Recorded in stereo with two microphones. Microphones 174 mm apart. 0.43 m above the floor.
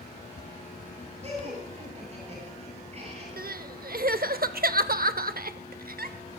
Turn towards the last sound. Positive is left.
turn(degrees=-65)  # may be behind; listen again after turning